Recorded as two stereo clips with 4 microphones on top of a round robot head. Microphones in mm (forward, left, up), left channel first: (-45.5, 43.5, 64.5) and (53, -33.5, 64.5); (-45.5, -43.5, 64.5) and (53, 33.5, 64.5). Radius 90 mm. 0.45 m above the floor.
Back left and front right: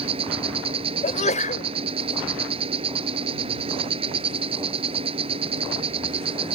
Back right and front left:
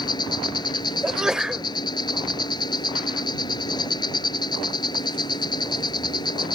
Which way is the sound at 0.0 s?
85° right.